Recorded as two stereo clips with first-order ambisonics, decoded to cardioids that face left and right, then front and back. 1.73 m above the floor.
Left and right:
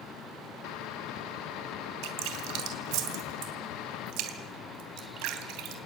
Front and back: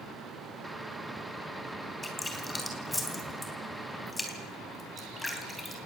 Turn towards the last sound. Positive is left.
turn(degrees=-80)